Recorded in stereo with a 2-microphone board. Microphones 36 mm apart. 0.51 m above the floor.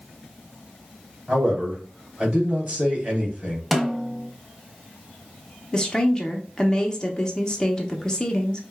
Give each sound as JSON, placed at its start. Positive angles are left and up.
{"t": 1.3, "sound": "a man speaking", "side_deg": -25, "distance_m": 2.5}
{"t": 3.7, "sound": "a snare drum", "side_deg": 0, "distance_m": 0.6}
{"t": 5.7, "sound": "a woman speaking", "side_deg": 25, "distance_m": 0.8}